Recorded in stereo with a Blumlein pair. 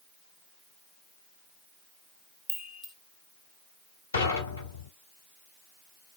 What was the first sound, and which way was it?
A chime, 10° left.